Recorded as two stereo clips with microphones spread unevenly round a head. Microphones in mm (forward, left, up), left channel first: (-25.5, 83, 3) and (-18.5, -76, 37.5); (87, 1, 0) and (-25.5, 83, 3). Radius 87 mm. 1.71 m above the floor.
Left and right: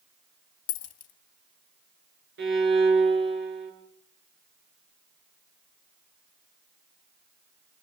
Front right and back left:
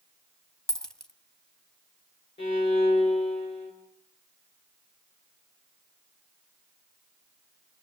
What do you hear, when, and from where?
0.7 s a dropped coin: 50° left, 1.5 m
2.4 s a violin: 100° right, 7.5 m